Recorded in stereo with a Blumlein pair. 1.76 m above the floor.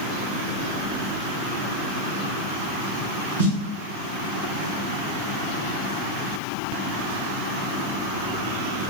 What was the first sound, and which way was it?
A snare drum, 70° right.